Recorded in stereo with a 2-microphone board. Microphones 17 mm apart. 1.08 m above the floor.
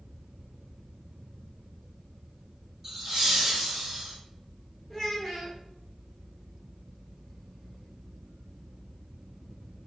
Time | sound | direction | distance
2.8 | laughter | 10° right (ahead or behind) | 1.3 m
4.9 | a child speaking | 5° left (ahead or behind) | 0.6 m